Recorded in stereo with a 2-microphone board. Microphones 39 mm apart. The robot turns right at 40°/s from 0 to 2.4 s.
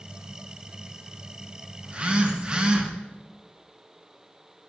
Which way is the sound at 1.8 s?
30° right (ahead or behind).